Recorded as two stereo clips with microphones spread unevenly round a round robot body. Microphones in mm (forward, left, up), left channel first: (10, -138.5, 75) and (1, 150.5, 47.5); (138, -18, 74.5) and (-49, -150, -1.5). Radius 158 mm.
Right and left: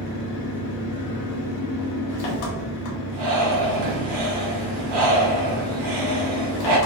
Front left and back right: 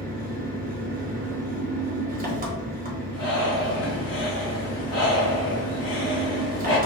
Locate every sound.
0.0 s an engine running: 105° right, 1.4 m
3.1 s breathing: 120° left, 1.7 m